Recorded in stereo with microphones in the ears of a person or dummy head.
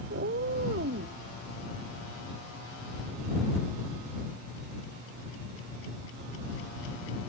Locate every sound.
0.1 s a cat meowing: 50° right (ahead or behind)